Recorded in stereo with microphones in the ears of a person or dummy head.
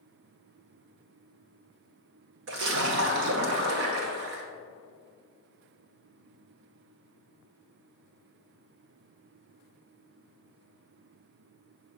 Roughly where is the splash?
Right.